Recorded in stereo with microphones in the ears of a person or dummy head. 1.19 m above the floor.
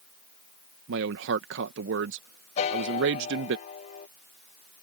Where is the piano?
35° left (ahead or behind).